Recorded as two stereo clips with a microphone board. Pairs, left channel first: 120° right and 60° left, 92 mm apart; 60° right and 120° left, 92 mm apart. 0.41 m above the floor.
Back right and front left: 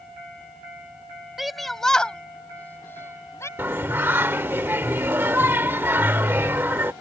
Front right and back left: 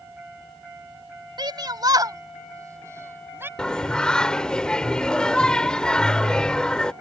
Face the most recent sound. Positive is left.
turn(degrees=15)